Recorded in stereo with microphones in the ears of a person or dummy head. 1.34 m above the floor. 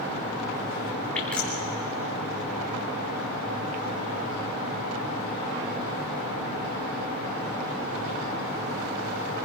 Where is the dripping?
10° left (ahead or behind), 3 m.